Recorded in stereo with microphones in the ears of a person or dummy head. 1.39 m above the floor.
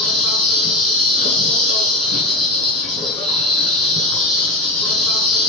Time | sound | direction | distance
0.0 | an insect | 60° right (ahead or behind) | 3.5 m